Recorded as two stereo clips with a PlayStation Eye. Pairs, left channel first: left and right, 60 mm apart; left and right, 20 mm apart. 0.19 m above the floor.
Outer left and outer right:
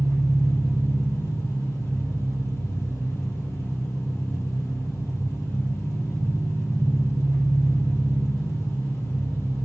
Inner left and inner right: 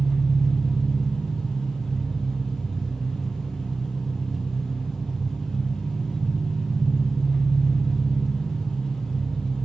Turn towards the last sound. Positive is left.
turn(degrees=50)  # may be behind; listen again after turning